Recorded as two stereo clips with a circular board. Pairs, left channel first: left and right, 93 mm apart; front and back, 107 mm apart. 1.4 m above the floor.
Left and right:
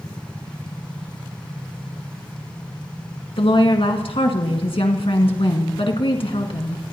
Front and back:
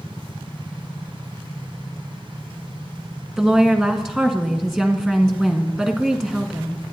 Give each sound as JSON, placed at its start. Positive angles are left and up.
{"t": 3.4, "sound": "a woman speaking", "azimuth_deg": 90, "distance_m": 1.7}